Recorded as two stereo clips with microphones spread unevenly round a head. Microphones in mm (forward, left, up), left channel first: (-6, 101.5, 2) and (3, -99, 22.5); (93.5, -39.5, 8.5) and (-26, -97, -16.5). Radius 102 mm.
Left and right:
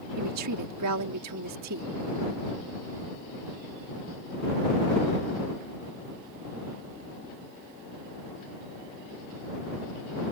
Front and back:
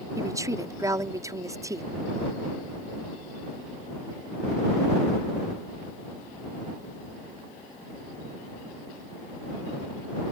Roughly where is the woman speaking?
Right.